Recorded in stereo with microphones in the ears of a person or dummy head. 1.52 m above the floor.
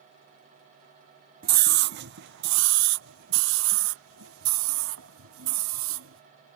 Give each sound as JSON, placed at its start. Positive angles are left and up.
{"t": 1.4, "sound": "a scream", "side_deg": -45}